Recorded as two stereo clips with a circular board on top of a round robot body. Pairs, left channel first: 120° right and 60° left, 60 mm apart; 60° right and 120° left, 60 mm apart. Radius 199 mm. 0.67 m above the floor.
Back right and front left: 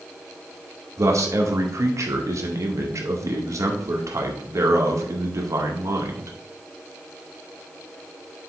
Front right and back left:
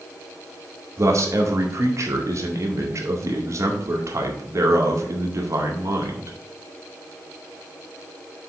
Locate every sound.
1.0 s a man speaking: 85° left, 2 m